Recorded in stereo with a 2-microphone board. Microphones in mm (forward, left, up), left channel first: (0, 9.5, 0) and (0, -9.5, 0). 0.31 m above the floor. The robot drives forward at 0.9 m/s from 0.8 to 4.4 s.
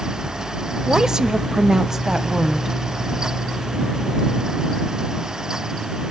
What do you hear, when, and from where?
0.9 s a woman speaking: 30° right (ahead or behind), 1.0 m; by 2.8 s 15° right (ahead or behind), 1.8 m